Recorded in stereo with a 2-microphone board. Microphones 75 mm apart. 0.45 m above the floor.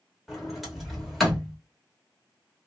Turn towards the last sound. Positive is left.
turn(degrees=0)  # may be behind; listen again after turning